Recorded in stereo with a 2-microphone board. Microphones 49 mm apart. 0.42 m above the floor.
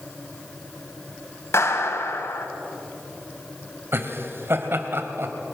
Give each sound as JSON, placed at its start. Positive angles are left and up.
{"t": 1.5, "sound": "a clap", "side_deg": 60, "distance_m": 2.5}
{"t": 3.9, "sound": "laughter", "side_deg": -55, "distance_m": 2.0}